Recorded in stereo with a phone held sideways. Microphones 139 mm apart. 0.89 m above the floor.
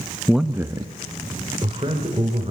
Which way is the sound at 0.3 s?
5° left (ahead or behind).